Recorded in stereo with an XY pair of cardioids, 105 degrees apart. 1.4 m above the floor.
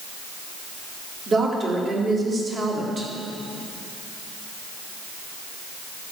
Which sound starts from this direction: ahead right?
A woman speaking, at 1.3 s.